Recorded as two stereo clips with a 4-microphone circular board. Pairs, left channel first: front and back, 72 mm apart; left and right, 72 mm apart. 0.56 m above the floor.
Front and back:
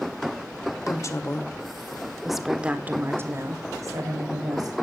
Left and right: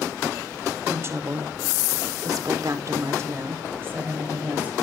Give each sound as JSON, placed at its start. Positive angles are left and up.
{"t": 0.9, "sound": "a woman speaking", "azimuth_deg": -35, "distance_m": 2.0}